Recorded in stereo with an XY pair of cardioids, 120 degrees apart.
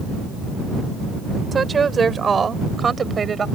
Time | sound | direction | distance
1.5 | a woman speaking | 30° right | ?